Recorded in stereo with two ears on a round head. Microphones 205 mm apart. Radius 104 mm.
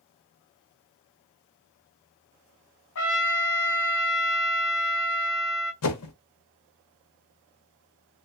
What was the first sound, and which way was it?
A trumpet, 60° left (ahead or behind).